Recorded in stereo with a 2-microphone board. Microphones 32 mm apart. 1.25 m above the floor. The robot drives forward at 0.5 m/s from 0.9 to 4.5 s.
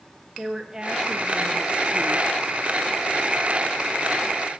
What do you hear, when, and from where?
0.4 s a woman speaking: 20° right (ahead or behind), 1.0 m; by 2.3 s 40° right (ahead or behind), 0.5 m